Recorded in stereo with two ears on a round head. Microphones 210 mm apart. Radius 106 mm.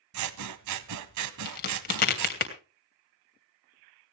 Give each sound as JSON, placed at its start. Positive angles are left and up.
{"t": 0.1, "sound": "scissors", "side_deg": -85, "distance_m": 0.9}
{"t": 1.4, "sound": "a crack", "side_deg": 40, "distance_m": 3.0}